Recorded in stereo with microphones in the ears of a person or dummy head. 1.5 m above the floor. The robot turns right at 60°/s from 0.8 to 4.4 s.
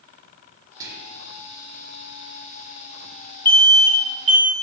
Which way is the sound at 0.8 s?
20° right (ahead or behind).